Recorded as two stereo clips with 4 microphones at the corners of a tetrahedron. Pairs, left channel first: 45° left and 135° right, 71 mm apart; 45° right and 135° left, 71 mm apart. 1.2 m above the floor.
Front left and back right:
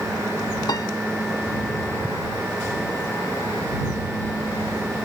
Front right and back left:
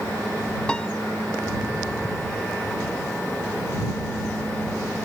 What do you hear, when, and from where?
0.7 s a piano: 30° left